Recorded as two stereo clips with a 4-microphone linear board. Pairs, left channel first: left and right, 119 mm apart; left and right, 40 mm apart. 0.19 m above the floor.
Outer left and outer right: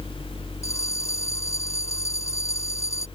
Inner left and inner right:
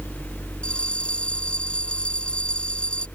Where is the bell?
25° left (ahead or behind).